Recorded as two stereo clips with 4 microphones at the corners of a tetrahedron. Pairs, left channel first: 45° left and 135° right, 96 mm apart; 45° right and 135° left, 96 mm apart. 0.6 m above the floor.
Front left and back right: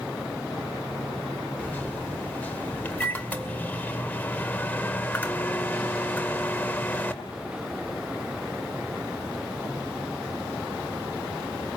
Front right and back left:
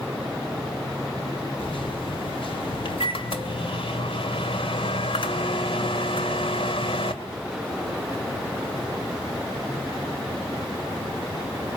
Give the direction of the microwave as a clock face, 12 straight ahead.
1 o'clock.